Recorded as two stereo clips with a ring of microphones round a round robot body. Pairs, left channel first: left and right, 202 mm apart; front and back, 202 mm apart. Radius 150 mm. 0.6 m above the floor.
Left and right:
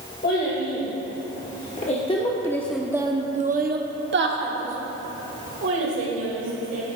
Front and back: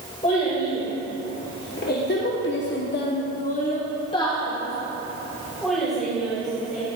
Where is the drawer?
I don't hear a drawer.